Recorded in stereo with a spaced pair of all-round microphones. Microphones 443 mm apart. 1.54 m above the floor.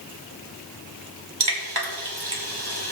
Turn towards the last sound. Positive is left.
turn(degrees=-60)  # may be behind; listen again after turning